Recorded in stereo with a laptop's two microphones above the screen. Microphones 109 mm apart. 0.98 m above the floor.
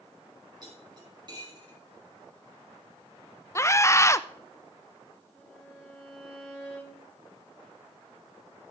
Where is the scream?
25° left (ahead or behind), 0.6 m.